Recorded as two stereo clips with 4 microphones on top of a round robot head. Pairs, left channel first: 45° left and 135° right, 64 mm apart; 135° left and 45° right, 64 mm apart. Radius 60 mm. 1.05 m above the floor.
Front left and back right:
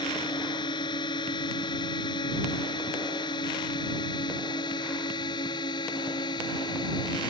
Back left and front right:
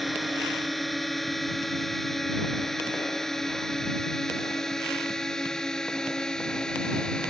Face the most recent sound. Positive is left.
turn(degrees=55)